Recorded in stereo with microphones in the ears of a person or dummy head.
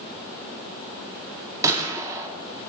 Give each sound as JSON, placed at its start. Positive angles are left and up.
{"t": 1.6, "sound": "a gunshot", "side_deg": -20, "distance_m": 1.6}